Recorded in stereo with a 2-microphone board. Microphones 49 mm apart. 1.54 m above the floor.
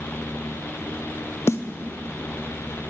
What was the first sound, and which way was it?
A snare drum, 60° left (ahead or behind).